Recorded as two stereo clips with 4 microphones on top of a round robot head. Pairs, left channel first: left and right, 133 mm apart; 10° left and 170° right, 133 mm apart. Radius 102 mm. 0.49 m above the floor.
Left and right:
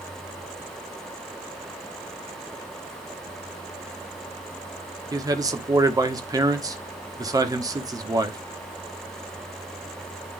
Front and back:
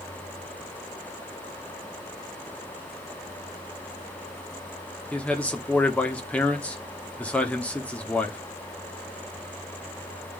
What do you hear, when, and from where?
5.1 s a man speaking: 60° right, 1.5 m